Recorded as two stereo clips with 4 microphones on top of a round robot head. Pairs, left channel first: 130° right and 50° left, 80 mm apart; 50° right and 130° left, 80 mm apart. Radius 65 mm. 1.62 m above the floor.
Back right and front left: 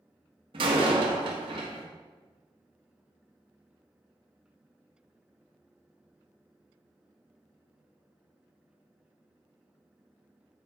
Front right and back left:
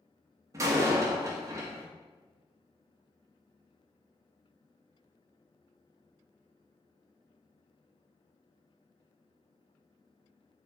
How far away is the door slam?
About 1.6 m.